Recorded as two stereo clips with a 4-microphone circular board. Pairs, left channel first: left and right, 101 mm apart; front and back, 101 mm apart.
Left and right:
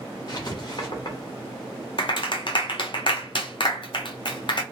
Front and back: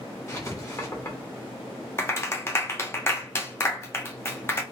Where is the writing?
55° left, 1.1 m.